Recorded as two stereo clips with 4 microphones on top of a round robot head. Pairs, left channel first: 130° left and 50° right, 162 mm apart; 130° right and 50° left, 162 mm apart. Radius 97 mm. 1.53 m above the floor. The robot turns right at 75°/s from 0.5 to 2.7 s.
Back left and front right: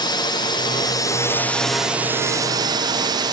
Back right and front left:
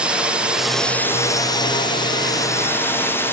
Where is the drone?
125° left; by 3.3 s 70° right.